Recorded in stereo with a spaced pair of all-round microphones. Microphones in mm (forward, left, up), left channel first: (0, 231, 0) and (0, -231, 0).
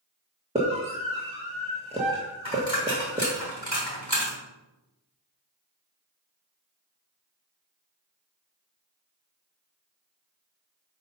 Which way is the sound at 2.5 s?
70° left (ahead or behind).